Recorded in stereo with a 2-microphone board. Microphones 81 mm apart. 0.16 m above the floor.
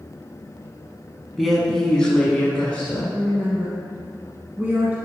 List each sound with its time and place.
1.4 s a woman speaking: centre (ahead or behind), 1.3 m; by 3.0 s 20° left (ahead or behind), 1.6 m
3.1 s a woman speaking: 25° right (ahead or behind), 1.2 m